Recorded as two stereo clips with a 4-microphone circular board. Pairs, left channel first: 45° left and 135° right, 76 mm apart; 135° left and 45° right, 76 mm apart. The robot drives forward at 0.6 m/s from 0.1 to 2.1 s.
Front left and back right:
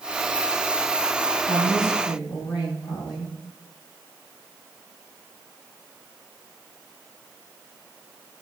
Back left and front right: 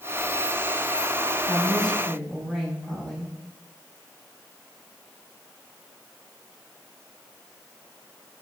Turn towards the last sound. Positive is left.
turn(degrees=40)